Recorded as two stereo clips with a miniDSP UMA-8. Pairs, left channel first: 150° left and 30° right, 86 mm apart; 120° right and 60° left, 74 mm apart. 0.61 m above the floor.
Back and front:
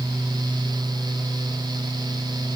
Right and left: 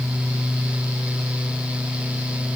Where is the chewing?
No chewing in this recording.